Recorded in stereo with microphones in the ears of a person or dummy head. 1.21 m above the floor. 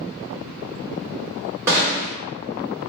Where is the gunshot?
15° right (ahead or behind), 1.7 m.